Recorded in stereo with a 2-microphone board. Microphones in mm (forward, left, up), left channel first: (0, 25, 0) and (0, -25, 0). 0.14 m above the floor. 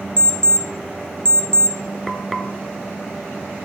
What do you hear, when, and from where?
0.2 s an alarm clock: 25° left (ahead or behind), 0.9 m
2.1 s frying: 5° left (ahead or behind), 0.6 m